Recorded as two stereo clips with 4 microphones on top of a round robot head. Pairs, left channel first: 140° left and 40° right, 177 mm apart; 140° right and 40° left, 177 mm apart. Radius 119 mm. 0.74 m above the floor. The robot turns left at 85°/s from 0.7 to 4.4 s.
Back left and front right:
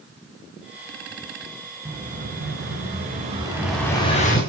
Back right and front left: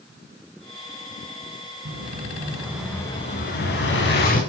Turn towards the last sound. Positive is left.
turn(degrees=175)